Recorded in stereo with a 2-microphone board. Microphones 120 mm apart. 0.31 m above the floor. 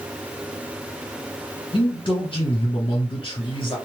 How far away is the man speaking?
About 2 m.